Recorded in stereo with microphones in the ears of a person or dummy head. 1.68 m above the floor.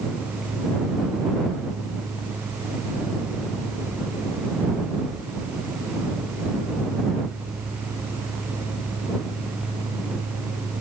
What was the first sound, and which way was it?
Only background noise.